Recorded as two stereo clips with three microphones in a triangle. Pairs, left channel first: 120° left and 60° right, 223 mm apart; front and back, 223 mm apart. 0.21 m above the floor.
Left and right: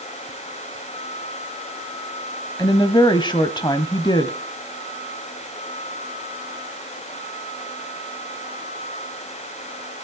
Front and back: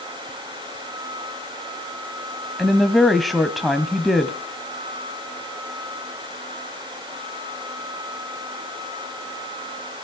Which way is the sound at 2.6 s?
90° left.